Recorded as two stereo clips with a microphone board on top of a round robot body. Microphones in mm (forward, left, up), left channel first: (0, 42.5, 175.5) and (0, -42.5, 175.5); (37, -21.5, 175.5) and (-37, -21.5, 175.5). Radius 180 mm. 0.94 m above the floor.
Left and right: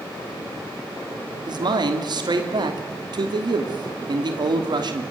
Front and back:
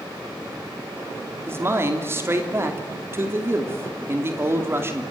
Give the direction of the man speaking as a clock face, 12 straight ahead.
4 o'clock.